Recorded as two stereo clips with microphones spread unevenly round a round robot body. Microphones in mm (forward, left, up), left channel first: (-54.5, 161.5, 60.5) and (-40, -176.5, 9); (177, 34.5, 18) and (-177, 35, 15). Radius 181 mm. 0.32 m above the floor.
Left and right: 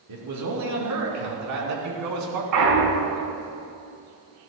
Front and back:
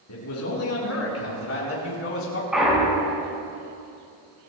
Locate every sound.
0.1 s a man speaking: 50° right, 5 m; by 2.4 s 55° right, 4 m
2.5 s a clunk: 90° right, 3.5 m